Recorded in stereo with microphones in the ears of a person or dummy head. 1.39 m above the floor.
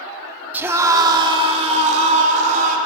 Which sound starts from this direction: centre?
A scream, at 0.5 s.